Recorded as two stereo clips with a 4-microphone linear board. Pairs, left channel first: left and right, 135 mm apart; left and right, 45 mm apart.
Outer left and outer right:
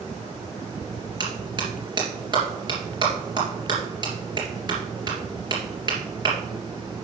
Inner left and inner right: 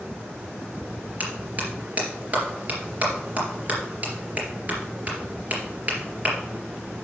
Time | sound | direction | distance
1.2 | a clap | 35° right (ahead or behind) | 3 m